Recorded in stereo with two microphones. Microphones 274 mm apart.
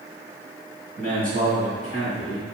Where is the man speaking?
35° right (ahead or behind), 1.7 m; by 2.4 s 25° right (ahead or behind), 3 m.